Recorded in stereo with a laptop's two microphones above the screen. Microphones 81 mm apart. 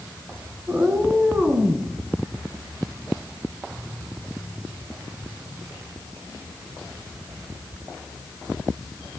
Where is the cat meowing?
25° right (ahead or behind), 1.6 m; by 1.9 s 20° right (ahead or behind), 2.5 m.